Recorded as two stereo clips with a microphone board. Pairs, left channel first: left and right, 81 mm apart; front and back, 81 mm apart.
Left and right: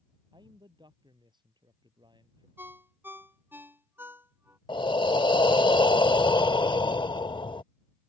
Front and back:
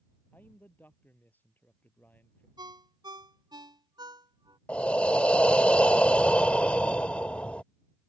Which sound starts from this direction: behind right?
A ringtone, at 2.6 s.